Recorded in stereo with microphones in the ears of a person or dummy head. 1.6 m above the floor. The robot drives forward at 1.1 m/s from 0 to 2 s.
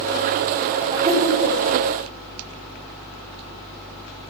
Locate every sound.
0.9 s laughter: 30° right (ahead or behind), 4.5 m; by 1.6 s 25° right (ahead or behind), 5 m